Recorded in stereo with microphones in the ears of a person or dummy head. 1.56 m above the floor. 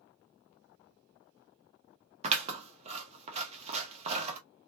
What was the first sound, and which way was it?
Scissors, 40° right (ahead or behind).